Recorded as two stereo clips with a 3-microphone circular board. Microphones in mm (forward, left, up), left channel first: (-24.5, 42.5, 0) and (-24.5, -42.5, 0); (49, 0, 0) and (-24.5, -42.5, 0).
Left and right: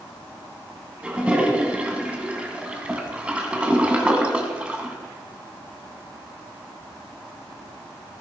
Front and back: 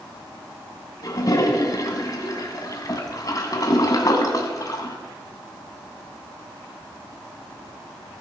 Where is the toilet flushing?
15° right, 2.0 m.